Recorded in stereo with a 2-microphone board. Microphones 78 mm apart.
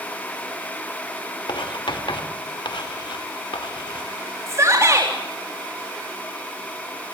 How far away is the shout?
About 4 m.